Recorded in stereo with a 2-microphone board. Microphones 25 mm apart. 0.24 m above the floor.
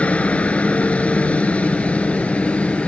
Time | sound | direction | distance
0.0 | a helicopter | 70° left (ahead or behind) | ?